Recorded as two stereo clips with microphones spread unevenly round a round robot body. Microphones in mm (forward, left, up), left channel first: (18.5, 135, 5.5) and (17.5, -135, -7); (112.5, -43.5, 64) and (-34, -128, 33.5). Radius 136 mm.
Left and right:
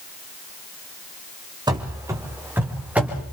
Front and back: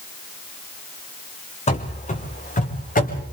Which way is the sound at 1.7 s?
15° right.